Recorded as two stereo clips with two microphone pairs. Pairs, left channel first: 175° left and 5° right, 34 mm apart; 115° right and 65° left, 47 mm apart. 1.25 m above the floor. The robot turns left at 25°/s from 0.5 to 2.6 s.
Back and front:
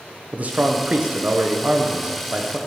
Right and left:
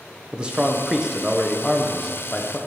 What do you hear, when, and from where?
0.3 s a man speaking: 5° left, 0.9 m; by 2.6 s 45° right, 0.9 m